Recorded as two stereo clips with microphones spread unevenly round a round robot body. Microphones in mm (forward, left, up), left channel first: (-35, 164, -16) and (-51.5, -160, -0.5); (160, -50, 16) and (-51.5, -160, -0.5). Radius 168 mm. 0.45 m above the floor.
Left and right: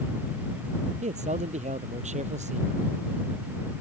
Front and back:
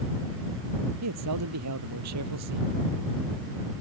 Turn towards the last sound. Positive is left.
turn(degrees=-160)